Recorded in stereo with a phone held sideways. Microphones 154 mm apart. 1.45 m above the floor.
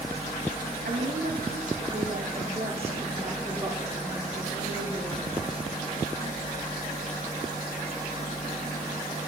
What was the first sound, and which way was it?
A woman speaking, 65° right (ahead or behind).